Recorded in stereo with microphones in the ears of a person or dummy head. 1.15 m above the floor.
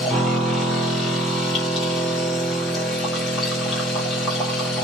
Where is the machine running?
Centre (ahead or behind), 0.8 m.